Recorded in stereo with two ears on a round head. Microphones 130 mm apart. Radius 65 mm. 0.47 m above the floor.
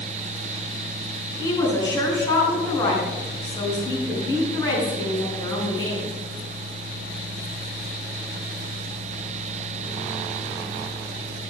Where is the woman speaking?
25° left (ahead or behind), 4 m.